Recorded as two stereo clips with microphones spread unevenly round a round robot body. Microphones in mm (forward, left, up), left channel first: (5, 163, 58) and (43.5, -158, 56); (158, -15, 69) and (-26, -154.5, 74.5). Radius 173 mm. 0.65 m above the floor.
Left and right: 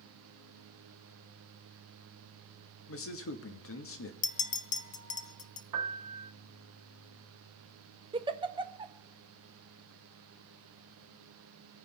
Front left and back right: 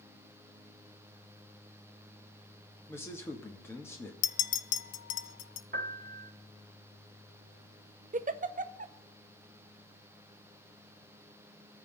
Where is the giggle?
145° right, 0.7 m.